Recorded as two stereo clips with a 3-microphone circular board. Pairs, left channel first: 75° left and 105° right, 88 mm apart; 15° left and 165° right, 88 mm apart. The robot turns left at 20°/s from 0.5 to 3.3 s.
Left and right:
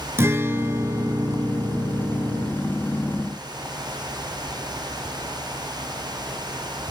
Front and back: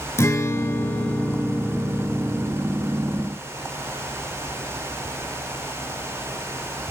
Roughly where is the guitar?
Ahead right.